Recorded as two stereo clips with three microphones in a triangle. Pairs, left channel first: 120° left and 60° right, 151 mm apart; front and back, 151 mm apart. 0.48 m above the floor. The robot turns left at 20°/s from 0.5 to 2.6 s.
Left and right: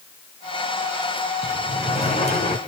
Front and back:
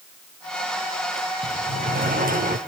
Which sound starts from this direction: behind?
A sliding door, at 1.4 s.